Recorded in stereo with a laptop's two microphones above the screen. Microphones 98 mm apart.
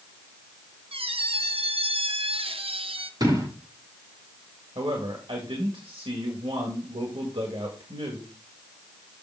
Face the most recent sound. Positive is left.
turn(degrees=-65)  # may be behind; listen again after turning